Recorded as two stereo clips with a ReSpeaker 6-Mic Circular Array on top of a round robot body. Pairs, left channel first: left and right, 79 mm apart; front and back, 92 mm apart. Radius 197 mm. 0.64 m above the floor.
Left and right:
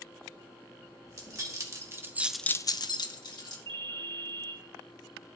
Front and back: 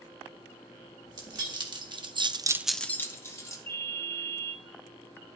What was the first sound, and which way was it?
Keys jangling, 135° right.